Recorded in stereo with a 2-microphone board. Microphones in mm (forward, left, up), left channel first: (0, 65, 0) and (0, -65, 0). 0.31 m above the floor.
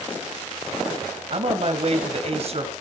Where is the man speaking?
50° right (ahead or behind), 2.0 m.